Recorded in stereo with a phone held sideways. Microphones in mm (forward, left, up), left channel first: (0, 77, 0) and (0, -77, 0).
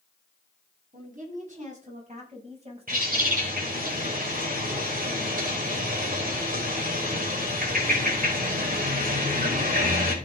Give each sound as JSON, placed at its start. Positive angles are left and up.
{"t": 0.9, "sound": "a woman speaking", "side_deg": -55, "distance_m": 9.0}
{"t": 2.9, "sound": "a bird", "side_deg": -65, "distance_m": 4.5}